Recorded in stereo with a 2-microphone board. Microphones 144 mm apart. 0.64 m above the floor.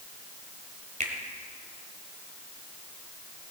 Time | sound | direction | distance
1.0 | a finger snap | 55° right (ahead or behind) | 2 m